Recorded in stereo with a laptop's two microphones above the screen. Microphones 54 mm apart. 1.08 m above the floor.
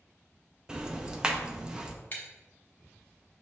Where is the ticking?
15° right (ahead or behind), 0.6 m.